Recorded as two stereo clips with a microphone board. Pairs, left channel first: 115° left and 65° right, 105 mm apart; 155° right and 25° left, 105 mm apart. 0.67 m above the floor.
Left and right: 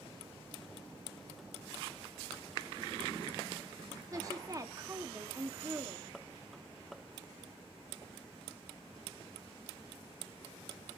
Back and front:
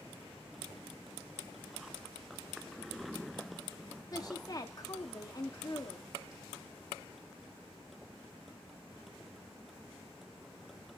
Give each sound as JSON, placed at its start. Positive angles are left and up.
{"t": 4.1, "sound": "a woman speaking", "azimuth_deg": -115, "distance_m": 0.8}